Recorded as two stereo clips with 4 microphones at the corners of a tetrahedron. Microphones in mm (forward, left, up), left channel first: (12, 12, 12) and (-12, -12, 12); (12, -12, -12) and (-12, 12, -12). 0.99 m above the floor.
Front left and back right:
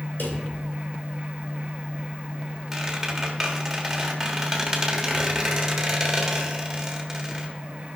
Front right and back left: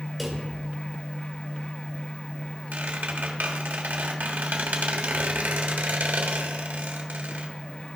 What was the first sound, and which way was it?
A drawer, 45° left.